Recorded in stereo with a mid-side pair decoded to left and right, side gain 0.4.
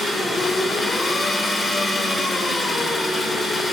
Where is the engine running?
35° left, 3.5 m.